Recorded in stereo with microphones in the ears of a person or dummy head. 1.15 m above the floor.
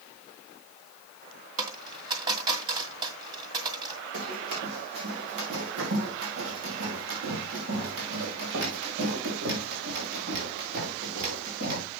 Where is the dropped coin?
30° right (ahead or behind), 1.9 m.